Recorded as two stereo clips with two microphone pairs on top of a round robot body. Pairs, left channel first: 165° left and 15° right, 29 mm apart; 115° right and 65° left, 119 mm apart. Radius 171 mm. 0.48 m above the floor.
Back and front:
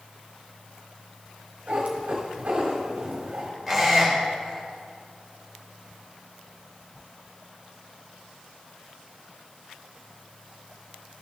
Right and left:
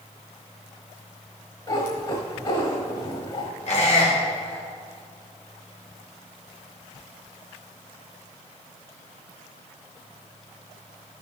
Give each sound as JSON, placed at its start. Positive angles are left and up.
{"t": 1.7, "sound": "a cat meowing", "azimuth_deg": -65, "distance_m": 1.4}
{"t": 3.7, "sound": "a squeak", "azimuth_deg": -110, "distance_m": 1.9}